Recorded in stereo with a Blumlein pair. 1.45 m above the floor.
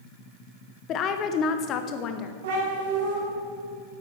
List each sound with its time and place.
0.9 s a woman speaking: 35° left, 0.7 m
2.4 s a cat meowing: 55° right, 3.5 m